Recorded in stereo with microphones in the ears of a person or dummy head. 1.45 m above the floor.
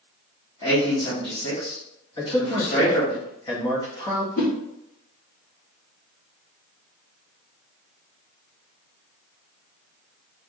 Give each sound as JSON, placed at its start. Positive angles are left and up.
{"t": 0.6, "sound": "a man speaking", "side_deg": 30, "distance_m": 1.8}
{"t": 2.2, "sound": "a man speaking", "side_deg": 25, "distance_m": 1.5}
{"t": 4.4, "sound": "a whoosh", "side_deg": 45, "distance_m": 1.5}